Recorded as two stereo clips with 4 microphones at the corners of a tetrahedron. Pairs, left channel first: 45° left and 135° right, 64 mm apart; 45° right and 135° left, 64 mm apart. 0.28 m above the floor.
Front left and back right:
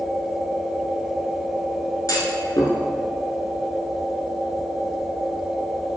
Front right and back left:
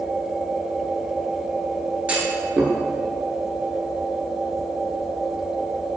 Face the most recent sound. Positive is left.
turn(degrees=65)